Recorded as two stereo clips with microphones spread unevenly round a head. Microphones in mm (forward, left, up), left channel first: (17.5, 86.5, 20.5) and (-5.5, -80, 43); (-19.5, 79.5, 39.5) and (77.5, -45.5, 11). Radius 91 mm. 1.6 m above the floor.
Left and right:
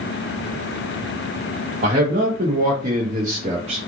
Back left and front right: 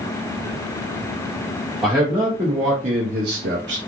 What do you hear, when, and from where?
1.8 s a man speaking: 145° right, 0.9 m; by 3.8 s 50° right, 0.6 m